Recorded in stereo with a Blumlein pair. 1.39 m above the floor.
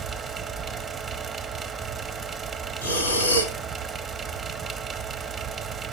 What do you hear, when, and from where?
0.0 s a fan: 15° right, 0.7 m
2.8 s breathing: 70° left, 1.8 m